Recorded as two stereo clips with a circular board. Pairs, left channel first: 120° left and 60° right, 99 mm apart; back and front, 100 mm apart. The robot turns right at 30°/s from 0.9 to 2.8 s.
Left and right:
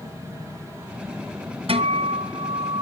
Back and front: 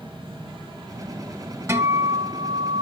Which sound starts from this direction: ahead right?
A guitar, at 1.7 s.